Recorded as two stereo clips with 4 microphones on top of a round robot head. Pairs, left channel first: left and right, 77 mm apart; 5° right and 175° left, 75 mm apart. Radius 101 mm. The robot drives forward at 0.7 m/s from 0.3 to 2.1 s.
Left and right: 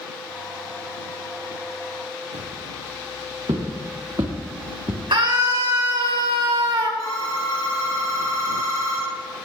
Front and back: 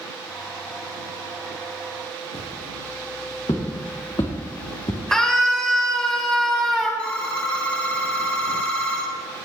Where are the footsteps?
55° right, 5.5 m; by 5.0 s 30° right, 3 m.